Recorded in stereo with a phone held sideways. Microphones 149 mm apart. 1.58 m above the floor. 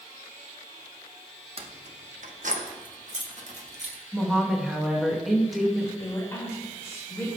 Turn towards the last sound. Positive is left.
turn(degrees=20)  # may be behind; listen again after turning